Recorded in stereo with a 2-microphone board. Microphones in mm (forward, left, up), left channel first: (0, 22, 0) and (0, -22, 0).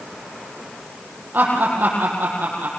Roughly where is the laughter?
Right.